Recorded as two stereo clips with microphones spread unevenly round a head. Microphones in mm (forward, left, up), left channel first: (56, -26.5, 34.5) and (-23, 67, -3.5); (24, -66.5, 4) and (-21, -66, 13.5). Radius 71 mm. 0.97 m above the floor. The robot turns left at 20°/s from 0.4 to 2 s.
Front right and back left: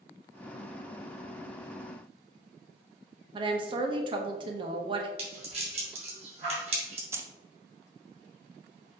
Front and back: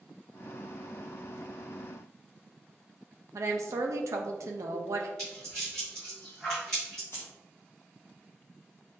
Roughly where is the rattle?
Left.